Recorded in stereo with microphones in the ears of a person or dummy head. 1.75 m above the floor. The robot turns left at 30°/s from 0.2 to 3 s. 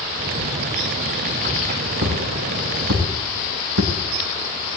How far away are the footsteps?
About 5.5 m.